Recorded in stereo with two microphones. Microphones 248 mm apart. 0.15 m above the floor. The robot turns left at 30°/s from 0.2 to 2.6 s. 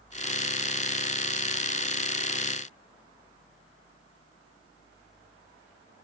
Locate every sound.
Only background noise.